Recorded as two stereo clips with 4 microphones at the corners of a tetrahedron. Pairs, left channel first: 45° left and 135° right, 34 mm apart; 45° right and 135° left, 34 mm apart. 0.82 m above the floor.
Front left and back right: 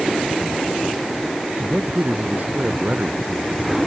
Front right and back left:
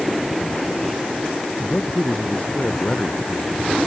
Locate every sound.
1.6 s a man speaking: 105° right